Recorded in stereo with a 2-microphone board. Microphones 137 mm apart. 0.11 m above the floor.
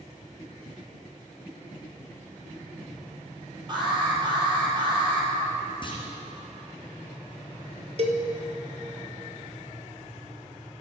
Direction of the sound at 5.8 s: 40° left (ahead or behind).